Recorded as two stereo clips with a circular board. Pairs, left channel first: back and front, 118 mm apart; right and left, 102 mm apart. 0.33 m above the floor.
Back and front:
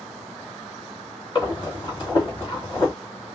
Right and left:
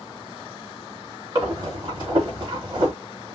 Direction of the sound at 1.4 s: 135° left.